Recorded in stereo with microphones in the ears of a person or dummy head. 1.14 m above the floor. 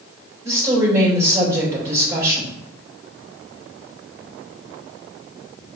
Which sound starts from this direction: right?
A woman speaking, at 0.4 s.